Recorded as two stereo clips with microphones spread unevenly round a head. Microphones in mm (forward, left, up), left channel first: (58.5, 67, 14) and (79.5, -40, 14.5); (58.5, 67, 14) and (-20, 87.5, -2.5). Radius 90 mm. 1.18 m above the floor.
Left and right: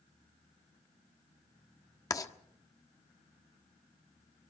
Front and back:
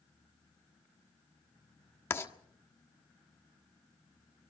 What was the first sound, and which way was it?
Writing, 40° left.